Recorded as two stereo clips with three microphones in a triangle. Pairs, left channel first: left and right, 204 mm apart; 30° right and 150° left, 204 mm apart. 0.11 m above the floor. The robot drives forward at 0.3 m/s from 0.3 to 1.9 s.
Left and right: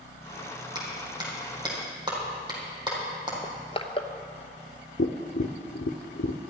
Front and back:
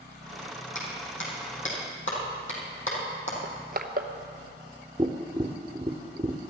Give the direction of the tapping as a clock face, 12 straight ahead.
9 o'clock.